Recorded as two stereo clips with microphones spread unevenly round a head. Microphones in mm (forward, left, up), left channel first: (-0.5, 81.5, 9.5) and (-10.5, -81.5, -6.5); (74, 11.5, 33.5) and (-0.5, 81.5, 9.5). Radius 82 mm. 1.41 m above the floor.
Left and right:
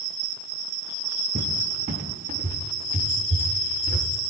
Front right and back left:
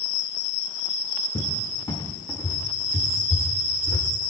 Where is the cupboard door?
65° right, 1.4 m.